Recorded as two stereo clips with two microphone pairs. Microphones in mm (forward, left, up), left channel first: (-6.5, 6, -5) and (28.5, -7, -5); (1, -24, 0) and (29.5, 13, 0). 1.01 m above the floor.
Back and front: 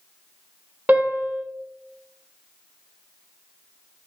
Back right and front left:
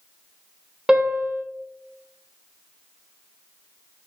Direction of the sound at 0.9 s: 15° right.